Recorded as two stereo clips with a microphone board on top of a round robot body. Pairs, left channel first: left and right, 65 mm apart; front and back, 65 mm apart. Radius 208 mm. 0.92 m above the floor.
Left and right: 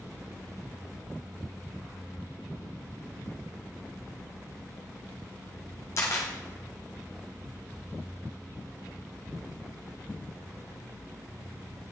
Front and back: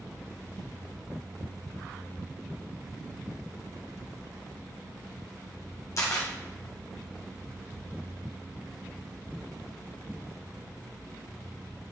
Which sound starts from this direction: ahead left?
A camera shutter, at 6.0 s.